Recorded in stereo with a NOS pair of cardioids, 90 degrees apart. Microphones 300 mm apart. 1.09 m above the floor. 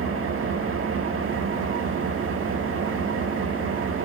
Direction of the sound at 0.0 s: 45° right.